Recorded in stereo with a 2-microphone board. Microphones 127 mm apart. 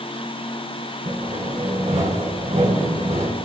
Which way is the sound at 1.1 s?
70° right (ahead or behind).